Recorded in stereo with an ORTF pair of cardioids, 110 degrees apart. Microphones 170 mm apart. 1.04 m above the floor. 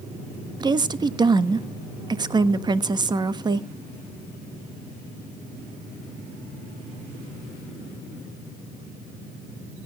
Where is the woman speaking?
25° right, 1.3 m.